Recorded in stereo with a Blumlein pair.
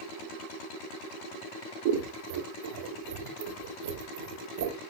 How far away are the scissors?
About 1.1 m.